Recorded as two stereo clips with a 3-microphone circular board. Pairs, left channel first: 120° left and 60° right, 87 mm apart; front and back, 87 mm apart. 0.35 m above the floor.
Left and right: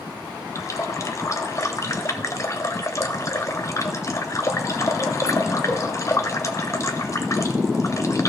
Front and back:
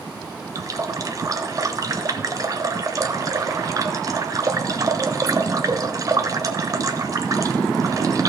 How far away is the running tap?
About 0.9 m.